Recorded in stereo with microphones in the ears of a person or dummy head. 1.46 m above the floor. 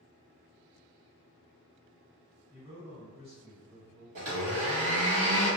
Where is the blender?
50° right (ahead or behind), 1.3 m.